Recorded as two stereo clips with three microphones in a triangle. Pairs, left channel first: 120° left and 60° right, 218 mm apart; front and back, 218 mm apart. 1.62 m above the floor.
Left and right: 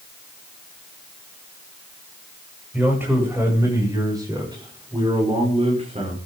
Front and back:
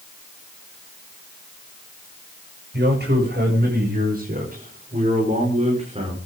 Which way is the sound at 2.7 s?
145° right.